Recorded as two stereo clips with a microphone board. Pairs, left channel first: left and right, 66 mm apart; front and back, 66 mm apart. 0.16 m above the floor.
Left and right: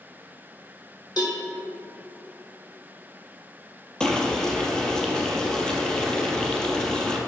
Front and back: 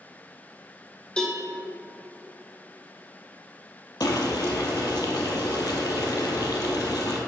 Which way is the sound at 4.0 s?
15° left.